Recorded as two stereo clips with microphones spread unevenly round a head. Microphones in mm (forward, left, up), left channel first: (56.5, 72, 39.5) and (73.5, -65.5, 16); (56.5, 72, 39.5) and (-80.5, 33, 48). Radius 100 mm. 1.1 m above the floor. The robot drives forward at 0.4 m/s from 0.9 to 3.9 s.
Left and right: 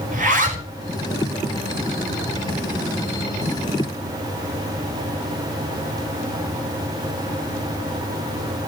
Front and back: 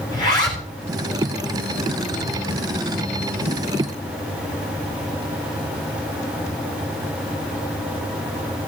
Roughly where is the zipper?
Ahead right.